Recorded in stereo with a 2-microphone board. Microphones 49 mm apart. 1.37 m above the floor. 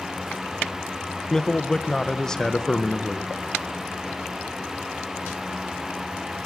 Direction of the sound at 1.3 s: 10° left (ahead or behind).